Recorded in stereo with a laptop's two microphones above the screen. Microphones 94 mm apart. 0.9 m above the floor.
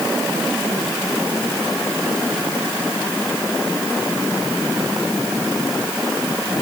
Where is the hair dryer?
No hair dryer in this recording.